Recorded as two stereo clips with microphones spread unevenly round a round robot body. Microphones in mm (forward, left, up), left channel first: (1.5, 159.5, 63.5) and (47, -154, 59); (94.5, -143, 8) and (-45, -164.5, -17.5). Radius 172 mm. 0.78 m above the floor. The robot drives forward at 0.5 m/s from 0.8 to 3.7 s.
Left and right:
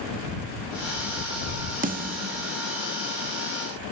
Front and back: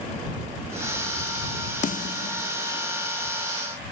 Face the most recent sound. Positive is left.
turn(degrees=-45)